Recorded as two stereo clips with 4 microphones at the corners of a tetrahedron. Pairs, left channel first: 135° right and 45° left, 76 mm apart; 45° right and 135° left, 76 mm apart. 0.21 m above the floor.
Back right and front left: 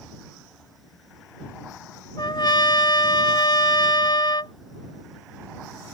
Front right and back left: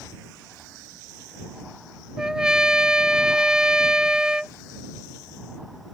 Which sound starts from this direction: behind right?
A trumpet, at 2.2 s.